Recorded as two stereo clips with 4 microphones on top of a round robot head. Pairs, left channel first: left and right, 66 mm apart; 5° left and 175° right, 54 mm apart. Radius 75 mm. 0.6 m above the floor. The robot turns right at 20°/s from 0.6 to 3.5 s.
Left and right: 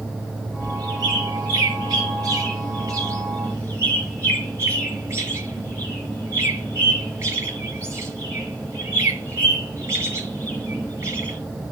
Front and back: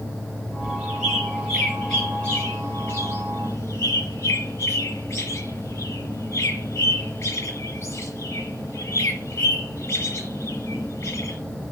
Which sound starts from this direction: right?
A bird, at 0.6 s.